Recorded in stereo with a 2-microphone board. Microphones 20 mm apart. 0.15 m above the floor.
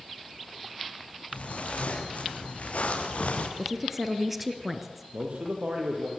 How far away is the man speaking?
About 6.5 m.